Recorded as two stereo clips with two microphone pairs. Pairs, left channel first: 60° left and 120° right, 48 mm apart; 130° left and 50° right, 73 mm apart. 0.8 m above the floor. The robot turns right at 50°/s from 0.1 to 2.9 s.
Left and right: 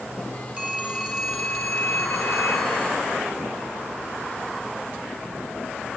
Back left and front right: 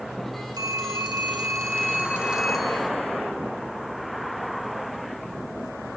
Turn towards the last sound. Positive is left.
turn(degrees=60)